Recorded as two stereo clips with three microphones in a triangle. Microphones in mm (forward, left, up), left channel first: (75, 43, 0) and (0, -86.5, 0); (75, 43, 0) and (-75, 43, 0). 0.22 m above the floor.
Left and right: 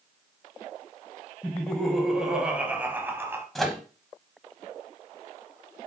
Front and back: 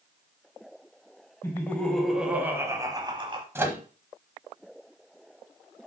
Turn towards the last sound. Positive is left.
turn(degrees=145)